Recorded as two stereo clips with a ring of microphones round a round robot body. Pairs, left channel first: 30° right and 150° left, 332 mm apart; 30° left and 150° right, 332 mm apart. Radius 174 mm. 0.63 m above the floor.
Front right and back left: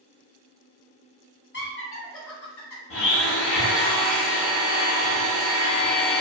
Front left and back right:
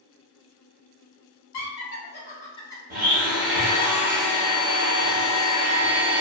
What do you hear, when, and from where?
1.5 s laughter: 15° left, 0.9 m; by 2.8 s 50° right, 0.9 m
2.9 s a blender: 85° right, 0.6 m